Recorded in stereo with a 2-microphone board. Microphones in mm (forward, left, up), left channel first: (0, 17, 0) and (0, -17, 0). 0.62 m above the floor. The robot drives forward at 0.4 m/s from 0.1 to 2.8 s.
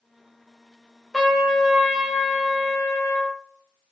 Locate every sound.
1.1 s a trumpet: 5° right (ahead or behind), 0.7 m; by 3.4 s centre (ahead or behind), 1.4 m